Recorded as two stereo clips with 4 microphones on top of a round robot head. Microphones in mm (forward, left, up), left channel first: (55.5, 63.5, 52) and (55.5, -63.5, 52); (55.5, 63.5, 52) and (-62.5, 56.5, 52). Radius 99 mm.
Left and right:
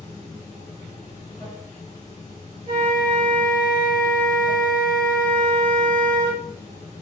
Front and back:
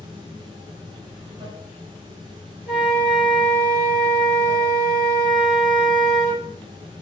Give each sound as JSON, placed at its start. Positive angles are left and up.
{"t": 0.0, "sound": "running water", "azimuth_deg": 145, "distance_m": 0.9}
{"t": 2.7, "sound": "a flute", "azimuth_deg": -35, "distance_m": 1.3}